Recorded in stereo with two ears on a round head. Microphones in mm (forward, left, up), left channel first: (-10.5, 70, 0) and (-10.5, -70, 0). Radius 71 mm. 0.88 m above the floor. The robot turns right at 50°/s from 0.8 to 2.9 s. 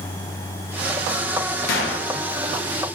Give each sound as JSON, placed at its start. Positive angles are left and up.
{"t": 1.7, "sound": "a gunshot", "side_deg": 65, "distance_m": 1.2}